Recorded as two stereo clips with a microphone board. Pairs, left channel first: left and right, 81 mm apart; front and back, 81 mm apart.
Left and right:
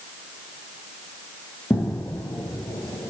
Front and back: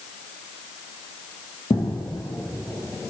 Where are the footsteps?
20° left, 1.2 m; by 3.1 s 90° left, 1.1 m.